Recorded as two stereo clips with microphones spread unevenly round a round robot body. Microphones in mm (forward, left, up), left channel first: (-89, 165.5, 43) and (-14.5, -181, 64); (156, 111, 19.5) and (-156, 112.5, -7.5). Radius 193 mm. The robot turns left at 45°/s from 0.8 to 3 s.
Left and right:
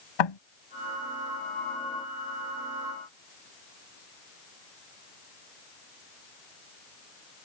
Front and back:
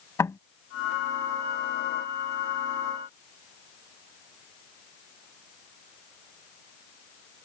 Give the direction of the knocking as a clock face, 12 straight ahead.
9 o'clock.